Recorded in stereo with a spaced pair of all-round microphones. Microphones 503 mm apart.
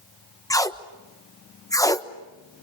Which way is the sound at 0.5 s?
5° left (ahead or behind).